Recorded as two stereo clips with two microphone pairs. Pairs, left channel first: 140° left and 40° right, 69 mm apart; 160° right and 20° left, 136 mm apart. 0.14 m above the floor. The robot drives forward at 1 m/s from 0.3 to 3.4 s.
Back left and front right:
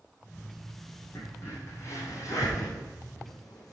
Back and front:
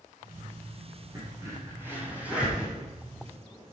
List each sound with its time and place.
1.1 s a crack: 85° left, 4 m; by 3.7 s 115° left, 4.5 m